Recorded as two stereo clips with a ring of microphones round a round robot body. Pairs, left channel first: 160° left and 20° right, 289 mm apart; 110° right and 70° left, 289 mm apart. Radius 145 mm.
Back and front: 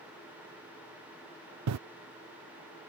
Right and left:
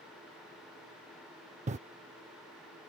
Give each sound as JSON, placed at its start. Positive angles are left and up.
{"t": 1.7, "sound": "breathing", "azimuth_deg": 5}